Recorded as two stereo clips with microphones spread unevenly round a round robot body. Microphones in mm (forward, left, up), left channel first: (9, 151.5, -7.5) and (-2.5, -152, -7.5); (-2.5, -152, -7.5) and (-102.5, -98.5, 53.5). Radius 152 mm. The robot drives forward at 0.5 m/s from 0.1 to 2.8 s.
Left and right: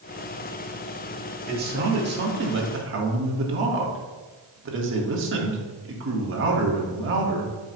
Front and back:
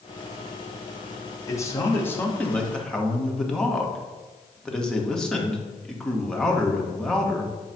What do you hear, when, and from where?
1.5 s a man speaking: 40° right, 1.6 m; by 7.5 s 70° right, 1.3 m